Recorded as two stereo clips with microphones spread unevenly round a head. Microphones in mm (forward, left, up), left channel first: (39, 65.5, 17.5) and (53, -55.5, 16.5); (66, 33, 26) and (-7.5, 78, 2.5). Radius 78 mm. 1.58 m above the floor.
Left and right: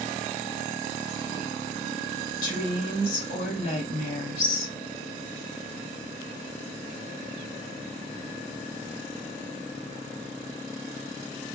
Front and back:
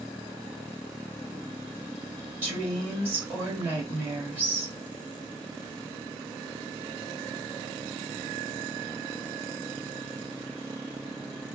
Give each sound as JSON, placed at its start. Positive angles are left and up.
{"t": 2.4, "sound": "a woman speaking", "azimuth_deg": 85, "distance_m": 2.0}